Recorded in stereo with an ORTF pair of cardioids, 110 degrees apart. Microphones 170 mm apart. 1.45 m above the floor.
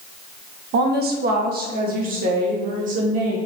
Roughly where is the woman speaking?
Ahead right.